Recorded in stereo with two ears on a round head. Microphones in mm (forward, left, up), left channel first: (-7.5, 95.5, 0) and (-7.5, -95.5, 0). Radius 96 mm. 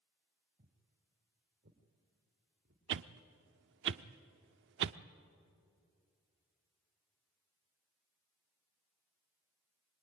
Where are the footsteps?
40° right (ahead or behind), 3.5 m; by 2.8 s 60° right (ahead or behind), 4.5 m.